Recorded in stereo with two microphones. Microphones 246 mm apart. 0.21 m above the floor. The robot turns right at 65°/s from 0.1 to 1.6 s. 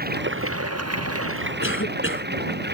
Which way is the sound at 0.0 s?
140° right.